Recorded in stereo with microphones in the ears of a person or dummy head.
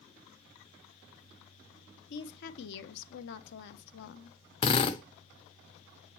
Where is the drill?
30° left (ahead or behind), 0.9 m.